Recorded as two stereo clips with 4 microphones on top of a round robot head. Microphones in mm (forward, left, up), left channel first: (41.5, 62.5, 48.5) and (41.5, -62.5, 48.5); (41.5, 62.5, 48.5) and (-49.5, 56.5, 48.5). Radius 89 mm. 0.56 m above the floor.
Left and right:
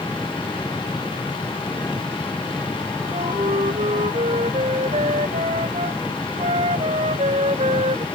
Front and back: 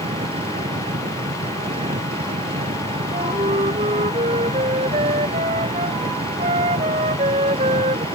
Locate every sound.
0.0 s an engine running: 170° left
3.1 s a flute: 145° right